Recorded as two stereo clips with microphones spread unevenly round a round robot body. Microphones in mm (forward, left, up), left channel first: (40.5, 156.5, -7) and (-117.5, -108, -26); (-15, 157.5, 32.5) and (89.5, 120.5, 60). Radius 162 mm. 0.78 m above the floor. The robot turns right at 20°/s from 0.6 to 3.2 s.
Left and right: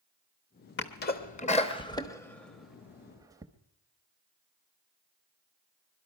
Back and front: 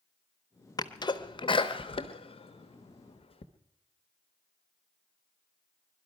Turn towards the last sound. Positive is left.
turn(degrees=160)